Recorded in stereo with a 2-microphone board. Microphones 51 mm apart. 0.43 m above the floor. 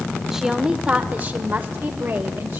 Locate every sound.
0.3 s a woman speaking: 10° right (ahead or behind), 1.4 m; by 2.6 s 55° right (ahead or behind), 2 m